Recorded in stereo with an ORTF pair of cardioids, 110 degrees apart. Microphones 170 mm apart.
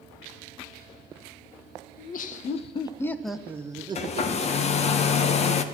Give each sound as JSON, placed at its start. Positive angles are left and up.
{"t": 2.0, "sound": "laughter", "azimuth_deg": 60, "distance_m": 1.1}
{"t": 4.0, "sound": "a hair dryer", "azimuth_deg": 40, "distance_m": 1.0}